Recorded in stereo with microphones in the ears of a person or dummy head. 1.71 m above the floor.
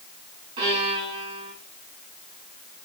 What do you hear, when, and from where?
0.6 s a violin: 35° right (ahead or behind), 5 m